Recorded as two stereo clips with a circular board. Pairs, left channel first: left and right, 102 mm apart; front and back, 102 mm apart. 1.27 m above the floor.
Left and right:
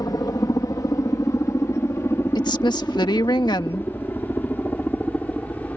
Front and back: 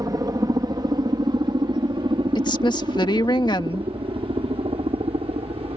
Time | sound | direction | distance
0.0 | a helicopter | 135° left | ?
2.4 | a woman speaking | 45° left | ?